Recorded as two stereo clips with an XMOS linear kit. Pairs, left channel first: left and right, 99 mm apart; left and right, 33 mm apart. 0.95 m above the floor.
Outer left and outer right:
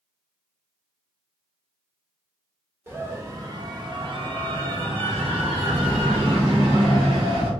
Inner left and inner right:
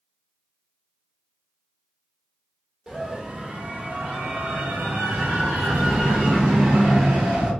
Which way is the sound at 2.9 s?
20° right (ahead or behind).